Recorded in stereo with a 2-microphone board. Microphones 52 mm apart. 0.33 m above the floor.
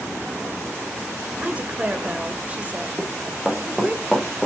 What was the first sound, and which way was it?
A woman speaking, 25° right (ahead or behind).